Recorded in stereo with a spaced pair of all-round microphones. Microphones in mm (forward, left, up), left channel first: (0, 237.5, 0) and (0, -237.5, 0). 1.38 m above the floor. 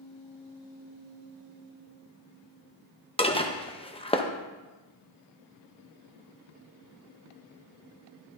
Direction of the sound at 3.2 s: 10° left (ahead or behind).